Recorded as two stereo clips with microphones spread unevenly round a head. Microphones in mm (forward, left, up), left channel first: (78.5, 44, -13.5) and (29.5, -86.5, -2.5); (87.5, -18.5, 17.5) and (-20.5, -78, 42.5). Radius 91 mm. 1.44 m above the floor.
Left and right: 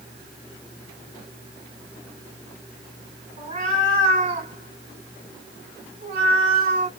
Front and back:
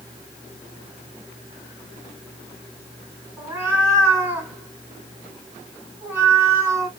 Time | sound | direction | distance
3.4 | a cat meowing | 90° right | 1.9 m